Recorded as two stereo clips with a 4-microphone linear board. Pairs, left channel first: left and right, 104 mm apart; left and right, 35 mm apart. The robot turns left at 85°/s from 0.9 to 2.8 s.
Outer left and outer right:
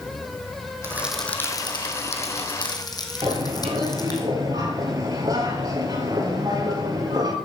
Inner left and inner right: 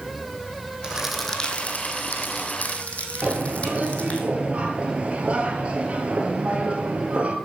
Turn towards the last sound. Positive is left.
turn(degrees=-35)  # may be behind; listen again after turning